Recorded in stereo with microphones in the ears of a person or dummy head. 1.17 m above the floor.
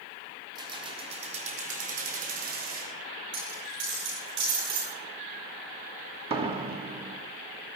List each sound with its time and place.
0.6 s keys jangling: 20° right (ahead or behind), 1.8 m; by 2.9 s 55° right (ahead or behind), 3.5 m
3.3 s a dropped coin: 65° right (ahead or behind), 9 m
6.3 s a door slam: 25° right (ahead or behind), 1.3 m